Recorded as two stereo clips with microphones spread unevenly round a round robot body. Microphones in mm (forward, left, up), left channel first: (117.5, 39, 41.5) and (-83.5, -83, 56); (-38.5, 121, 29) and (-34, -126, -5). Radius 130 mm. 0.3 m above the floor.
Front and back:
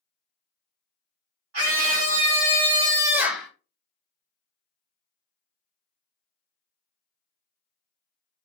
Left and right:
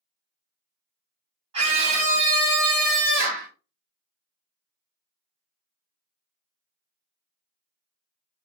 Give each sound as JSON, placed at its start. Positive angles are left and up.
{"t": 1.5, "sound": "a scream", "azimuth_deg": -150, "distance_m": 2.0}